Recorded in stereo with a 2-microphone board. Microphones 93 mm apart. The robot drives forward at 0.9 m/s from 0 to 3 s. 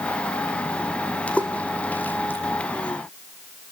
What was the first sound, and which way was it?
A splash, 15° left (ahead or behind).